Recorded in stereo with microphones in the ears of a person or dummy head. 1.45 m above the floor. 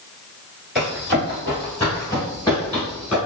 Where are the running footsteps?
5° left (ahead or behind), 1.5 m.